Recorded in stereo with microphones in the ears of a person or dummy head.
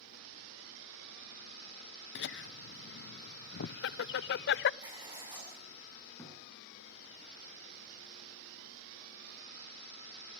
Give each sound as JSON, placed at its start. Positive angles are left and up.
{"t": 2.1, "sound": "laughter", "side_deg": 65, "distance_m": 0.6}
{"t": 4.8, "sound": "writing", "side_deg": -20, "distance_m": 9.0}
{"t": 6.2, "sound": "a thud", "side_deg": 15, "distance_m": 6.0}